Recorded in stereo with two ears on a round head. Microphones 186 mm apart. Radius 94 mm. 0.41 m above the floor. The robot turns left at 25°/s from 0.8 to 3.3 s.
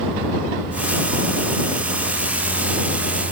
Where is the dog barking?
No dog barking in this recording.